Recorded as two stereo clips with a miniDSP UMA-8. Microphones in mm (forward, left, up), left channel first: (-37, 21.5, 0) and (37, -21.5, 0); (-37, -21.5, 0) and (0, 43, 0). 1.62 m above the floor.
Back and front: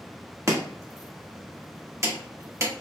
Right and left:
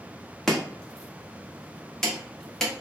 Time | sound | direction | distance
0.5 | chopping | 40° right | 1.1 m